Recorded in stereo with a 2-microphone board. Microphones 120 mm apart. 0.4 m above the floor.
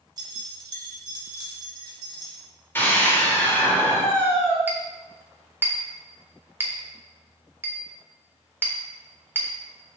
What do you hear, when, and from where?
0.2 s keys jangling: 35° right (ahead or behind), 1.0 m
2.8 s a scream: 20° left (ahead or behind), 1.4 m
4.7 s a clink: 15° right (ahead or behind), 0.7 m